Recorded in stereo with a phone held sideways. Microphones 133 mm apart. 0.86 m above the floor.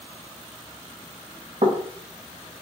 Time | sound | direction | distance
1.6 | knocking | 55° right (ahead or behind) | 0.6 m